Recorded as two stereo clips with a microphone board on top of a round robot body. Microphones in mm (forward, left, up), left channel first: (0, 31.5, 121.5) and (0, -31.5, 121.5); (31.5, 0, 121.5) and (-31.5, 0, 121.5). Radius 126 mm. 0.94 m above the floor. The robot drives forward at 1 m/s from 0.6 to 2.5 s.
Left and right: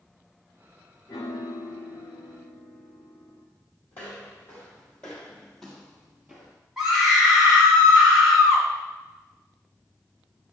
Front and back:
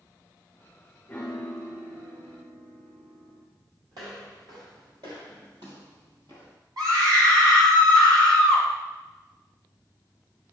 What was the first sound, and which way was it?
A piano, 65° left.